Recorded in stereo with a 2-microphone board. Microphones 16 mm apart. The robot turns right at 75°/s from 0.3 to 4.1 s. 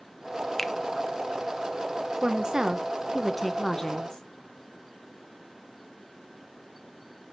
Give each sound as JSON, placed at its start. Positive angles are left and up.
{"t": 0.6, "sound": "a finger snap", "side_deg": 10, "distance_m": 0.6}
{"t": 2.2, "sound": "a woman speaking", "azimuth_deg": -85, "distance_m": 0.8}